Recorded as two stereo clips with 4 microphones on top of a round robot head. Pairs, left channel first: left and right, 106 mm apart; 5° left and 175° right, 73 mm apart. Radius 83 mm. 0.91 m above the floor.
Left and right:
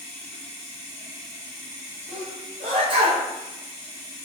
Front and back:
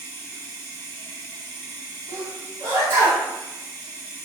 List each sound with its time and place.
0.0 s running water: 165° right, 1.5 m
2.1 s a sneeze: 120° right, 1.6 m